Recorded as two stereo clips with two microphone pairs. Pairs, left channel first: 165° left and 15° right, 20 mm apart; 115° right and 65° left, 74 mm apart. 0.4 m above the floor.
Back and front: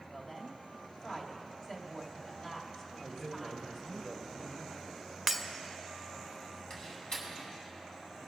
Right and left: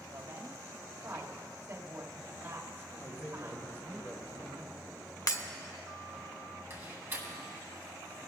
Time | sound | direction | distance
0.1 | a woman speaking | 105° left | 2 m
3.0 | a man speaking | 155° right | 3.5 m
5.3 | breaking glass | 95° right | 0.6 m
6.7 | a door slam | 125° left | 2.5 m